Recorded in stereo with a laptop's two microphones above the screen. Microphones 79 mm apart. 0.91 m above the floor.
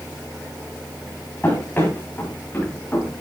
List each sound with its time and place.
1.4 s running footsteps: 25° left (ahead or behind), 6.5 m